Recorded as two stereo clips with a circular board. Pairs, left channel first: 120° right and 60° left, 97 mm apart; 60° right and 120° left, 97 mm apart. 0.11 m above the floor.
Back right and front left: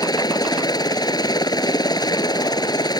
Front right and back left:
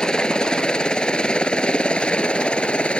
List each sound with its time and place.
0.0 s a helicopter: 140° right; by 3.0 s 135° right